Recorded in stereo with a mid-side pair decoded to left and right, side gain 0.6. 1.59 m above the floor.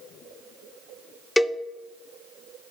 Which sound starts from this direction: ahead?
A cowbell, at 1.4 s.